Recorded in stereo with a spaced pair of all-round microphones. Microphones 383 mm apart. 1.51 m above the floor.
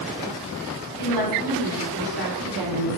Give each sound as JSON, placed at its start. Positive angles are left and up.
{"t": 1.0, "sound": "a woman speaking", "side_deg": -75, "distance_m": 4.5}